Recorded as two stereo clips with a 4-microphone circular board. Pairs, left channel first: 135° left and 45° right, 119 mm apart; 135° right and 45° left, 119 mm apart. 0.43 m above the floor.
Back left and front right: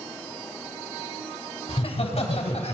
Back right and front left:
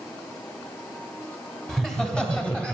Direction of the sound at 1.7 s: 140° left.